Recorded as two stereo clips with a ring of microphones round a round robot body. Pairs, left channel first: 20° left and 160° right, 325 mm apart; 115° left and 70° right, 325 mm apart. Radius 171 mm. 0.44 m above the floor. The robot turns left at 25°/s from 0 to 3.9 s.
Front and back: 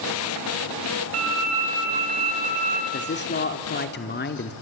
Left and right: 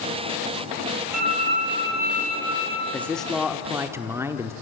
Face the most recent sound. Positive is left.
turn(degrees=5)